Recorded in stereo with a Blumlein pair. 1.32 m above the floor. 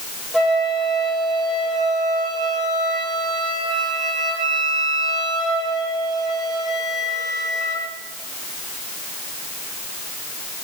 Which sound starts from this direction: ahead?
A flute, at 0.3 s.